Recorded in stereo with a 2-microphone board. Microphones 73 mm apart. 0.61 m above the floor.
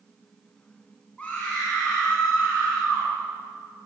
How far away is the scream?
About 6 m.